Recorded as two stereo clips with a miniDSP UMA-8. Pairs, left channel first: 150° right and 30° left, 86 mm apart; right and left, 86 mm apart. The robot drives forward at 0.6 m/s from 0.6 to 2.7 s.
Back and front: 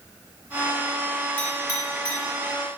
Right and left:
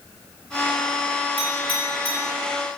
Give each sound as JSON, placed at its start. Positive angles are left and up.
{"t": 1.4, "sound": "a clink", "azimuth_deg": -90, "distance_m": 0.9}